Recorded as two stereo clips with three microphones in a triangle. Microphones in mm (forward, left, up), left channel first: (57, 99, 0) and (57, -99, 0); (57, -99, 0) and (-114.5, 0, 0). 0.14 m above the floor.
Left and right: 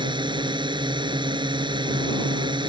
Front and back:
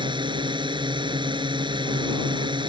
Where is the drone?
150° right.